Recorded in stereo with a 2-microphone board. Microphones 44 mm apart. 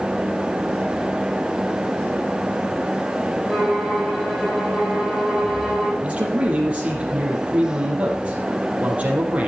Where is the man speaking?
30° right (ahead or behind), 4.5 m.